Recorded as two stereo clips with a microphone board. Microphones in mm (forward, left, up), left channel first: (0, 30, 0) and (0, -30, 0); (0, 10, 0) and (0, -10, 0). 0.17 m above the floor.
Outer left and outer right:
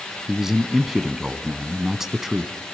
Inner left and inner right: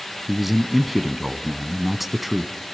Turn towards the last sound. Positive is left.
turn(degrees=-5)  # may be behind; listen again after turning